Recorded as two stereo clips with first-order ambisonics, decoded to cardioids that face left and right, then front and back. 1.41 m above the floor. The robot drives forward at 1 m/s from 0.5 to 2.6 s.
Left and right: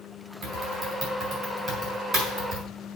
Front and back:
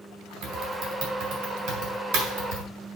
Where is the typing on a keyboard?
145° right, 4 m; by 2.6 s 160° right, 6 m.